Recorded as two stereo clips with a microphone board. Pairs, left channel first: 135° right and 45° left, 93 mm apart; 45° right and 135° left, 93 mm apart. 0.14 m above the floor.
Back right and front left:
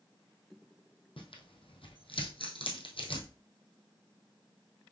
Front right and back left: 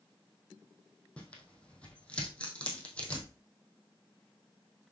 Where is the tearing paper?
125° right, 2 m.